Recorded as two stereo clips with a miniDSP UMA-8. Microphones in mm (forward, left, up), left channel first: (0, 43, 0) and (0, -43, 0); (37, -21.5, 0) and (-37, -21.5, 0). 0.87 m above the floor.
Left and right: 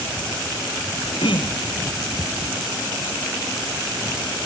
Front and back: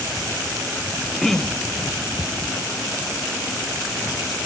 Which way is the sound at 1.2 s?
85° left.